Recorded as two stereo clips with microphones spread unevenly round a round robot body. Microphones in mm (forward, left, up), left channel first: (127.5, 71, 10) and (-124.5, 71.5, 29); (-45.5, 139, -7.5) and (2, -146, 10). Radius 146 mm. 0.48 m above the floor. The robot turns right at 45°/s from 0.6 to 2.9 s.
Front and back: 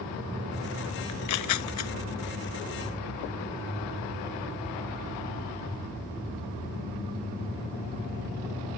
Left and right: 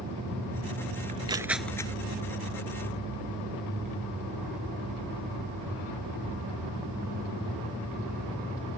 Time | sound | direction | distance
1.1 | tearing paper | 15° right | ?